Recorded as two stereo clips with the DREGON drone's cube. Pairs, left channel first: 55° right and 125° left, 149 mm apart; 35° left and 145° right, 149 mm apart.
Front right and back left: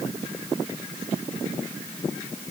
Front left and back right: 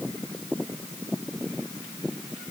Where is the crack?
No crack in this recording.